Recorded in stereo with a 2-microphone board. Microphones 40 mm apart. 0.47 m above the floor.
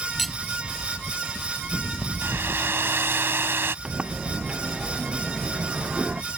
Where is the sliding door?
25° right (ahead or behind).